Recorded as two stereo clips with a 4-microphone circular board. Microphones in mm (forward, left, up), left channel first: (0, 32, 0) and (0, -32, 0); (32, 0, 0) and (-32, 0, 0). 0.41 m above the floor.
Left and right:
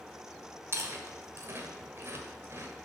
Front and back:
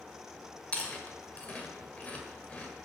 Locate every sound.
0.7 s chewing: 65° right, 1.5 m